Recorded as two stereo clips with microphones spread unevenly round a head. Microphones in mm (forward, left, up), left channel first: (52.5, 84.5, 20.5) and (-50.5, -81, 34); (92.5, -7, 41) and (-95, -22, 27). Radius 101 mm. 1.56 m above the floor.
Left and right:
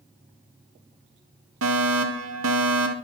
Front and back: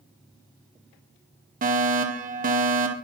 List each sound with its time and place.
1.6 s a fire alarm: 135° right, 3.5 m